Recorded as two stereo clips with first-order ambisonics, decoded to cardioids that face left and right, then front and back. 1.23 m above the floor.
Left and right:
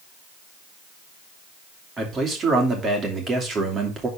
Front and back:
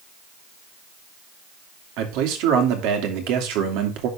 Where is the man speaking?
160° right, 2.5 m.